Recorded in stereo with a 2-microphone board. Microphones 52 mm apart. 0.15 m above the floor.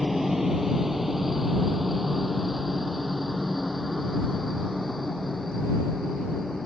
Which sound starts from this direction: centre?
A helicopter, at 0.0 s.